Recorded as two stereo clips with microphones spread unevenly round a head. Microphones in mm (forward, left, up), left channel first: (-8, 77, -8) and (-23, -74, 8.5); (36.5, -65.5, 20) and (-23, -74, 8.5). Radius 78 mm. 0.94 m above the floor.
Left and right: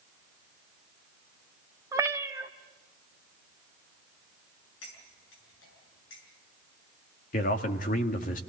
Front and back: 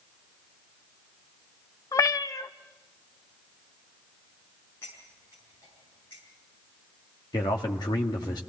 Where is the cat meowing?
25° right, 0.9 m.